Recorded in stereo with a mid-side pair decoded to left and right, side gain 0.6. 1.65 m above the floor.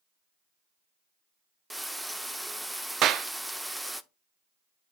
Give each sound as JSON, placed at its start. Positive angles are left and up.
{"t": 1.7, "sound": "frying", "azimuth_deg": -5, "distance_m": 0.8}
{"t": 3.0, "sound": "a clap", "azimuth_deg": -60, "distance_m": 0.6}